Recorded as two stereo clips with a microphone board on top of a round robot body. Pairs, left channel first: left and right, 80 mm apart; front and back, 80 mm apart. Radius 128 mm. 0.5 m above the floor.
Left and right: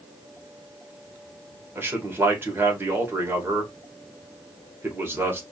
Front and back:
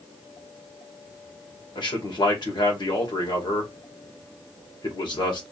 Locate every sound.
1.8 s a man speaking: 25° right, 2 m